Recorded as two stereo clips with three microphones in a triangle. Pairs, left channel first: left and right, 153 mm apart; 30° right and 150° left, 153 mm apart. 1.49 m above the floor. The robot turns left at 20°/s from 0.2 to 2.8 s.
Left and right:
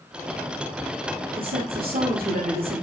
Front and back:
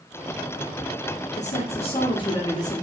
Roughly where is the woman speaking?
Right.